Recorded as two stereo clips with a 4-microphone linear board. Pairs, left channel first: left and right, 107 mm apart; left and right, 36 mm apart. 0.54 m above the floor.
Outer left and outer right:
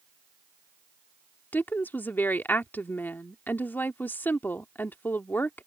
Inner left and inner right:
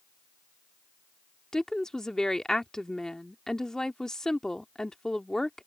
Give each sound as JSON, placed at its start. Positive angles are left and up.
{"t": 1.5, "sound": "a woman speaking", "side_deg": 20}